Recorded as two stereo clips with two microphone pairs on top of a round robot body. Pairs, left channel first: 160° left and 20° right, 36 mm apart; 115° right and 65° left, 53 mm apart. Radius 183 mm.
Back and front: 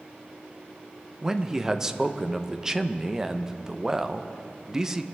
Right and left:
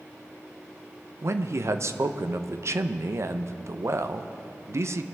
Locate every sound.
1.2 s a man speaking: 55° left, 0.9 m